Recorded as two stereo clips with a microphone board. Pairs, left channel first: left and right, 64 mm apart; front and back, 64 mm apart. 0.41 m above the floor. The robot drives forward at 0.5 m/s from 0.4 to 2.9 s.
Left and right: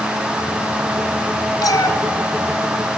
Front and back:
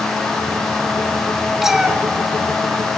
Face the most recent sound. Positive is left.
turn(degrees=120)